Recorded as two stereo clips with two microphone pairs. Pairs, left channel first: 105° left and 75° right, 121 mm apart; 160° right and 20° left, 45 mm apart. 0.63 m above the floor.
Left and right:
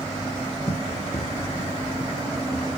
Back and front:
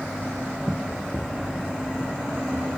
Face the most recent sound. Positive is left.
turn(degrees=100)